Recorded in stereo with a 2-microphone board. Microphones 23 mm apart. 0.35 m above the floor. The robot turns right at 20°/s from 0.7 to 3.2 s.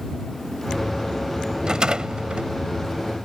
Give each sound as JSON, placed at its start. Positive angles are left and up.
{"t": 1.6, "sound": "a rattle", "side_deg": -35}